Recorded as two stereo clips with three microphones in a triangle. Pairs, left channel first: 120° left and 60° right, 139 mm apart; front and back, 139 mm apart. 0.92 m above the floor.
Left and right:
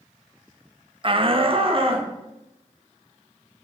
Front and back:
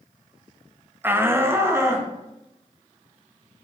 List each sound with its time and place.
1.0 s a shout: 105° right, 0.8 m; by 2.1 s 110° right, 2 m